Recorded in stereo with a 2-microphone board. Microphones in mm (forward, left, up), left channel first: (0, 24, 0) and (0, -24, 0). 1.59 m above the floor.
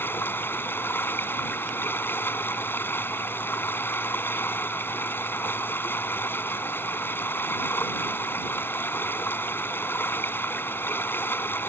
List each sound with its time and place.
0.0 s running water: 50° left (ahead or behind)